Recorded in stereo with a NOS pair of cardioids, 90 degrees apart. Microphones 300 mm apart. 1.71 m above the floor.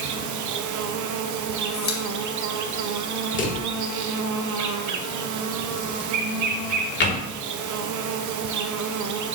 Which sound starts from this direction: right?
An insect, at 0.0 s.